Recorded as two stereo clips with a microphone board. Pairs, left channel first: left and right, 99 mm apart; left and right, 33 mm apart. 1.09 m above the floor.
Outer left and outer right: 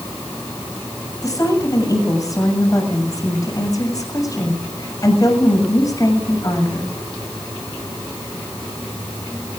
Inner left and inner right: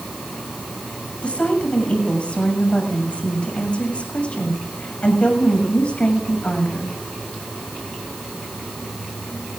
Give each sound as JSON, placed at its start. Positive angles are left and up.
{"t": 1.2, "sound": "a woman speaking", "side_deg": 40, "distance_m": 7.0}